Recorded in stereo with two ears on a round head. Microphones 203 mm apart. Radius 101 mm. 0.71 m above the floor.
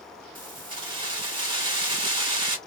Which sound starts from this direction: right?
Keys jangling, at 0.3 s.